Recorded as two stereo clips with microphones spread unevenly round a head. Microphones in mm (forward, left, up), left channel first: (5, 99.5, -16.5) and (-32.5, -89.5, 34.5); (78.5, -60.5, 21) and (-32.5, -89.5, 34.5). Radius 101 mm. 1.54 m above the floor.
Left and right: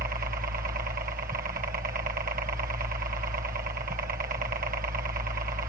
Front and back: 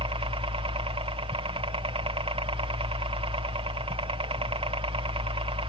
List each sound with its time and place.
0.0 s a helicopter: 150° right